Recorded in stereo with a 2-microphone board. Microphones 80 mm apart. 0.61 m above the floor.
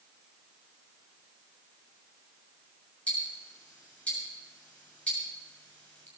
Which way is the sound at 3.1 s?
15° left (ahead or behind).